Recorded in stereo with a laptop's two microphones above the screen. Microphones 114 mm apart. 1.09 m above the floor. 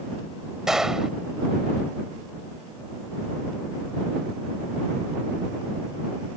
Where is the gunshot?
5° right (ahead or behind).